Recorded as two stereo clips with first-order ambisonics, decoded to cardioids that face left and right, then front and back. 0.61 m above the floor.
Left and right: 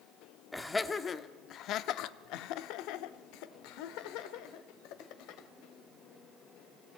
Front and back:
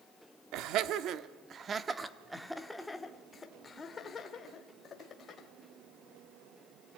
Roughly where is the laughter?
Behind.